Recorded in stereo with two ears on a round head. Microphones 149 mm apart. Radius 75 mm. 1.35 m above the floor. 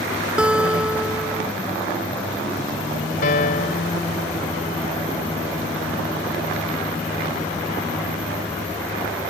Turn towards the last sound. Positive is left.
turn(degrees=55)  # may be behind; listen again after turning